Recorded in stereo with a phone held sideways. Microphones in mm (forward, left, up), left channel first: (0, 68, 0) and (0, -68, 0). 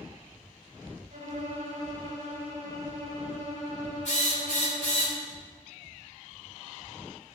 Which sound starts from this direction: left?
A drill, at 4.0 s.